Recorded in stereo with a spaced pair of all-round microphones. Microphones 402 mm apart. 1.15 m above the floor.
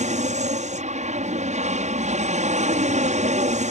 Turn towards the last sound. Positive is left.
turn(degrees=-15)  # may be behind; listen again after turning